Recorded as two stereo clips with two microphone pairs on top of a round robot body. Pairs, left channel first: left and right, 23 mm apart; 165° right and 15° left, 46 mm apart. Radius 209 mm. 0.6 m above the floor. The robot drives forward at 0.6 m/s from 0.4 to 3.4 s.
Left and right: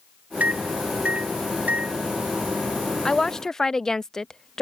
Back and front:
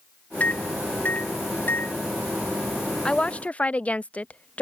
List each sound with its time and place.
0.4 s a microwave: 105° right; by 2.0 s 120° right
3.0 s a woman speaking: 140° left; by 4.6 s 150° left